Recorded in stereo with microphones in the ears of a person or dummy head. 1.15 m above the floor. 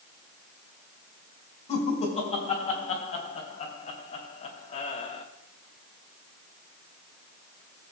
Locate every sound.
1.7 s laughter: 35° left (ahead or behind), 4.5 m